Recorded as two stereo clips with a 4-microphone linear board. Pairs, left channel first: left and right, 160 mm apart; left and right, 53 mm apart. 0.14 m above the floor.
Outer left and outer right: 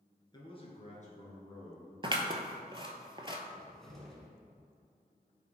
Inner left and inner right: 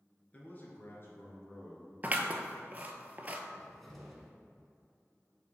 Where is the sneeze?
No sneeze in this recording.